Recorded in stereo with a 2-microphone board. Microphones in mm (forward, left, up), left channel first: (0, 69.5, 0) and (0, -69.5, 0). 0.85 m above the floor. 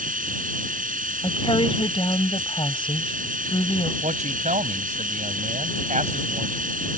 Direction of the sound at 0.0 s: 85° right.